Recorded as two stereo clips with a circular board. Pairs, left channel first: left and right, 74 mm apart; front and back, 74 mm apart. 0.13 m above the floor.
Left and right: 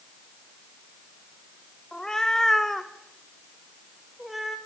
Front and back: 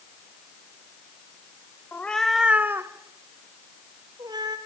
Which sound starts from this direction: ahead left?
A cat meowing, at 1.9 s.